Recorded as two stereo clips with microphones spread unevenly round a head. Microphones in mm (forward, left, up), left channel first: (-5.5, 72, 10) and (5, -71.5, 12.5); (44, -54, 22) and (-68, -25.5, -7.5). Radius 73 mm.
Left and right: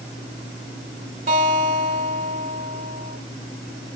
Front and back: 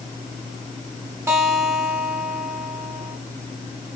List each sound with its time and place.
1.3 s a guitar: 125° right, 3 m